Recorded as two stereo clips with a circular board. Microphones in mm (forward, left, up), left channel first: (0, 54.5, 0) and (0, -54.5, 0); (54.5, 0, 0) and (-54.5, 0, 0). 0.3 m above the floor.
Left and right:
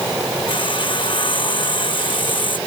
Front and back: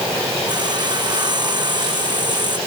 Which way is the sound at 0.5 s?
130° left.